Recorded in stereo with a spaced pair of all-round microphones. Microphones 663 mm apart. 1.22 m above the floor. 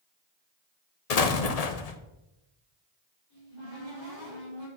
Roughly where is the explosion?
Left.